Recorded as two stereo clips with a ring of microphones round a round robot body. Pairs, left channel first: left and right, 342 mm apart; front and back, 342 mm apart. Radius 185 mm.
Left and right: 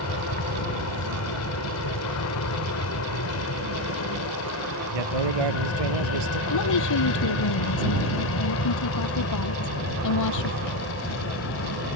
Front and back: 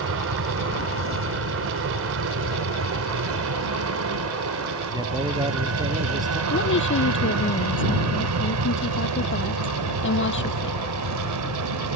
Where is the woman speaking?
55° left.